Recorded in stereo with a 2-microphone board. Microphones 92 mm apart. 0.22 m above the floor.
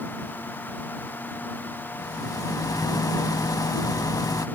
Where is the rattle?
45° left (ahead or behind).